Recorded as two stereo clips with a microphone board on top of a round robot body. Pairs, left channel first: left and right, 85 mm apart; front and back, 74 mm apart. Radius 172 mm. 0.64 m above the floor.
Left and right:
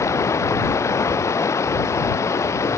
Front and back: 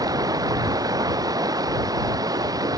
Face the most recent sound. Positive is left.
turn(degrees=145)